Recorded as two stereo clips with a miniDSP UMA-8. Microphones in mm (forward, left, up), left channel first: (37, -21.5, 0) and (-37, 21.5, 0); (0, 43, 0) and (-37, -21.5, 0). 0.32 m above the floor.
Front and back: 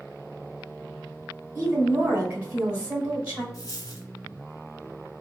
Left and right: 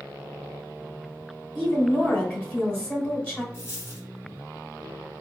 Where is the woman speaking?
100° left, 1.0 m.